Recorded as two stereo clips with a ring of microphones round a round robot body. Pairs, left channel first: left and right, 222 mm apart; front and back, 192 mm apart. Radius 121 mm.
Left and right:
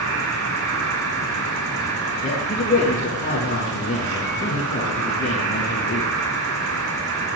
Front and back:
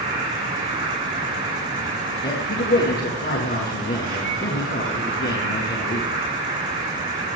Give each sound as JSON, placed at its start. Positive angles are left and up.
{"t": 0.0, "sound": "an insect", "azimuth_deg": -110, "distance_m": 7.0}
{"t": 2.2, "sound": "a man speaking", "azimuth_deg": 35, "distance_m": 8.0}